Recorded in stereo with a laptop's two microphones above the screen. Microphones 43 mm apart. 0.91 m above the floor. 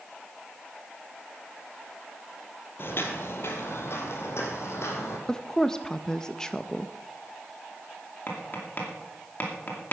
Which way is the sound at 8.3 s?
45° left (ahead or behind).